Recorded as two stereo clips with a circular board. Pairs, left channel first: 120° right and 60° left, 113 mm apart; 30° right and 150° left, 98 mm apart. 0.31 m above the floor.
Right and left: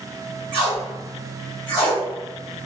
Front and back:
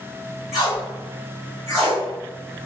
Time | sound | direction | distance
0.5 | tape being pulled | 65° left | 1.6 m